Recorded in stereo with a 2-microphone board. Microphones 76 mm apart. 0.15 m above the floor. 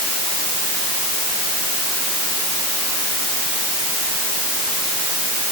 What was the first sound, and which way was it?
Only background noise.